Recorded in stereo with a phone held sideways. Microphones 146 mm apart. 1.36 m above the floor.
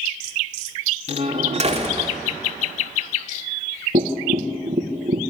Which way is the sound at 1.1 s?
50° right (ahead or behind).